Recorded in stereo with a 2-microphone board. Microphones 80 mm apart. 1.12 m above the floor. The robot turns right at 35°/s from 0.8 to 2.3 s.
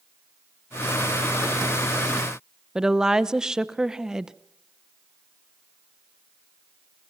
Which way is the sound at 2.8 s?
10° right (ahead or behind).